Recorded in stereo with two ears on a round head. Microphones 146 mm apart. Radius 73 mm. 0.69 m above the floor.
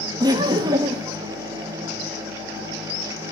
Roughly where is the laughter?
Right.